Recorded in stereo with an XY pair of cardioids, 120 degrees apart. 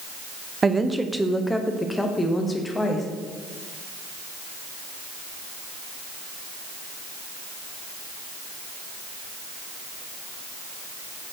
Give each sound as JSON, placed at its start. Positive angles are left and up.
{"t": 0.6, "sound": "a woman speaking", "azimuth_deg": -25, "distance_m": 0.7}